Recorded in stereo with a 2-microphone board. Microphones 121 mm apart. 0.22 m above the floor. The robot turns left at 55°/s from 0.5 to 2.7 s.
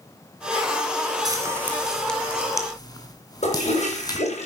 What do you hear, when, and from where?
1.2 s frying: 30° right (ahead or behind), 2.5 m; by 4.2 s 30° left (ahead or behind), 2.5 m
3.4 s a toilet flushing: 65° left (ahead or behind), 7.5 m